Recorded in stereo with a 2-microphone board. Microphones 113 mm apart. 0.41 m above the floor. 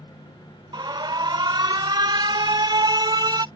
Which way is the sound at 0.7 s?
40° right (ahead or behind).